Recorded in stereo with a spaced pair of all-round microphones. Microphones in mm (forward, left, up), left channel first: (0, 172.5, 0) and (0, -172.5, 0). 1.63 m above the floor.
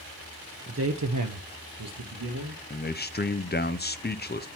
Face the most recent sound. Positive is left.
turn(degrees=30)  # may be behind; listen again after turning